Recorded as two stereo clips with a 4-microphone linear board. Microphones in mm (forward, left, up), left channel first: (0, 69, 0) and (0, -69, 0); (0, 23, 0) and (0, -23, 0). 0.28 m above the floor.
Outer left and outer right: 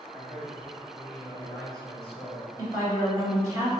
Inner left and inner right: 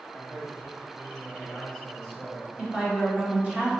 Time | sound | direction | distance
0.1 | a man speaking | 15° right (ahead or behind) | 1.4 m
2.6 | a woman speaking | 25° right (ahead or behind) | 1.4 m